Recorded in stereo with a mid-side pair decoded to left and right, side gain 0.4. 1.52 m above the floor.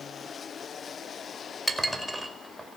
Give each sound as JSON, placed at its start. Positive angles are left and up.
{"t": 1.7, "sound": "dishes clattering", "azimuth_deg": -5, "distance_m": 4.5}